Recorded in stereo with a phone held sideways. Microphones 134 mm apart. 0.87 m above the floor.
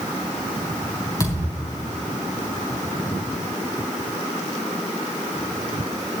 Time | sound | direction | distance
1.2 | a thud | 25° left (ahead or behind) | 4 m